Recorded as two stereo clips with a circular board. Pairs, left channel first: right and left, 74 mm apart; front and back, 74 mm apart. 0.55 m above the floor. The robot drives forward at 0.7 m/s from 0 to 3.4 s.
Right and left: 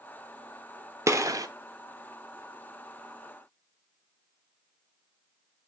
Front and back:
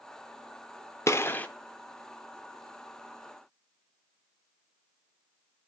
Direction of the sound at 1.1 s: 45° left.